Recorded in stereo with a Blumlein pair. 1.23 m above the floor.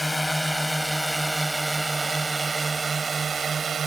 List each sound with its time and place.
0.0 s a drone: 5° left; by 3.9 s 20° right